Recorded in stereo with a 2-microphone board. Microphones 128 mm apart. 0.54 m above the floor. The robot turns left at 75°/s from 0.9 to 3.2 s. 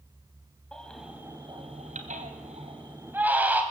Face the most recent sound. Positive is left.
turn(degrees=-15)  # may be behind; listen again after turning